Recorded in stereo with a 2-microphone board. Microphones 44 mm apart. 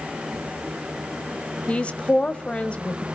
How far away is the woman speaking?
About 1.3 m.